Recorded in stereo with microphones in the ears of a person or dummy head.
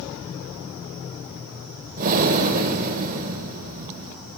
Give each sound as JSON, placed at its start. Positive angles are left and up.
{"t": 2.0, "sound": "breathing", "side_deg": -40, "distance_m": 2.5}